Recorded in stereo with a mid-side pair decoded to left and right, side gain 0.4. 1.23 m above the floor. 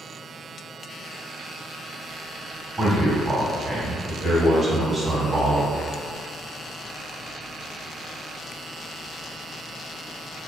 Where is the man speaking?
25° right, 1.3 m.